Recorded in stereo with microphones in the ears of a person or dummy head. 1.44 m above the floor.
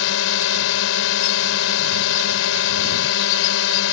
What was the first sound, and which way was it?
A drone, 75° left (ahead or behind).